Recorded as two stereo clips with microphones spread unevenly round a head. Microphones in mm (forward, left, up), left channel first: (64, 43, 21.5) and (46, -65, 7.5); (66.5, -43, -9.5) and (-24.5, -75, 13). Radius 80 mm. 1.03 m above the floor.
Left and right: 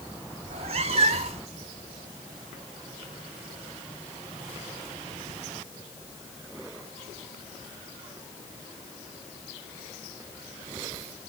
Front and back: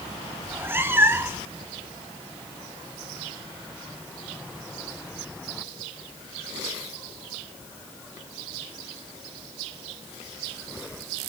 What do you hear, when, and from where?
0.4 s a cat meowing: 120° right, 0.7 m